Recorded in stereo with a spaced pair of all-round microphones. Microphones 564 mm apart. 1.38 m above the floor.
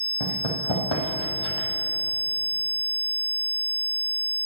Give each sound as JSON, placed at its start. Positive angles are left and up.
{"t": 0.2, "sound": "running footsteps", "side_deg": 60, "distance_m": 3.0}